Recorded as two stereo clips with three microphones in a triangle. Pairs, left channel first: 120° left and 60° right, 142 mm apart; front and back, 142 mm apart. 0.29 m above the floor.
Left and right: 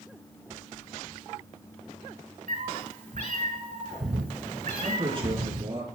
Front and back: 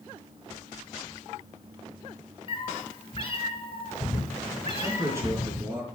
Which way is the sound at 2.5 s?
50° right.